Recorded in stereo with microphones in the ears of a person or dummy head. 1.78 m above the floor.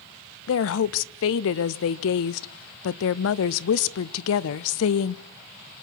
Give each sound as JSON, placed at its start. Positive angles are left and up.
{"t": 0.5, "sound": "a woman speaking", "side_deg": 70, "distance_m": 0.7}